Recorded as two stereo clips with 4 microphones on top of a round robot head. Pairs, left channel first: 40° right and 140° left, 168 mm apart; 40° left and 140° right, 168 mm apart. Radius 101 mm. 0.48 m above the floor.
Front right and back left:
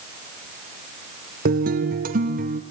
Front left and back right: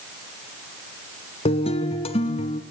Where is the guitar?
100° left, 1.4 m.